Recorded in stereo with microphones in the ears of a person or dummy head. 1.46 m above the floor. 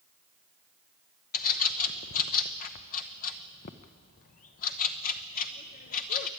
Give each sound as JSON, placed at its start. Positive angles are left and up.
{"t": 1.3, "sound": "a bird", "side_deg": 50, "distance_m": 0.8}